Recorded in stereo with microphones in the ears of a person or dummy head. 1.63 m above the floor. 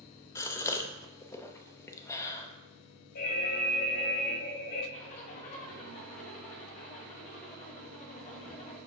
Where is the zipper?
40° left (ahead or behind), 2.5 m.